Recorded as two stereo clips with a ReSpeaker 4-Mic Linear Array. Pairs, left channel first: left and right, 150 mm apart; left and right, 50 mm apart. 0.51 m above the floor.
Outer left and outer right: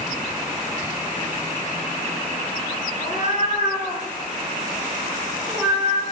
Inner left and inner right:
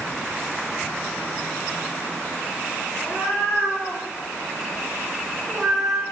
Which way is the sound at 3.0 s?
65° left (ahead or behind).